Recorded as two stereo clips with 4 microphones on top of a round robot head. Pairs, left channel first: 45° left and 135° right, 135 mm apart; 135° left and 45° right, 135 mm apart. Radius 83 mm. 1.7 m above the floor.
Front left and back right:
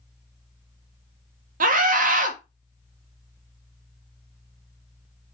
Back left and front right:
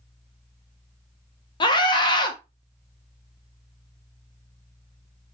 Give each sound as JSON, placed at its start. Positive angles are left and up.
{"t": 1.6, "sound": "a scream", "azimuth_deg": -165, "distance_m": 1.7}